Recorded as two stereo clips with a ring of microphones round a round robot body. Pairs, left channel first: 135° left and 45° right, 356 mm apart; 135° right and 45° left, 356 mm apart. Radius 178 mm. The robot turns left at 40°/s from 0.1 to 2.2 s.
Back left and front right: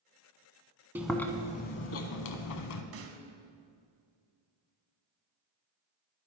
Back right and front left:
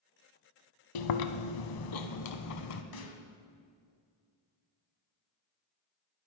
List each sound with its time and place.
0.9 s chewing: 130° right, 0.7 m; by 2.8 s straight behind, 0.7 m
2.9 s a snare drum: 100° right, 1.1 m